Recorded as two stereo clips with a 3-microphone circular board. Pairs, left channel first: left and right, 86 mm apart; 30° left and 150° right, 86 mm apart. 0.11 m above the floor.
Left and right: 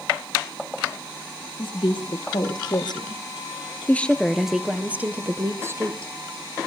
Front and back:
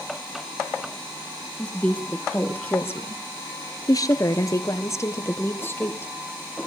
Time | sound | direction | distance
1.6 | a woman speaking | 105° left | 3 m